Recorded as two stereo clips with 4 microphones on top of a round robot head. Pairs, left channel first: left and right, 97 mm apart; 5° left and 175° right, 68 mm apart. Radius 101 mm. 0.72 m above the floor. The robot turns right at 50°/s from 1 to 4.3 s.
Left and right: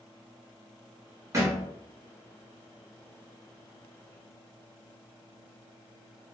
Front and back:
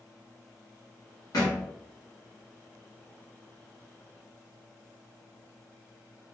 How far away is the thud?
About 0.9 m.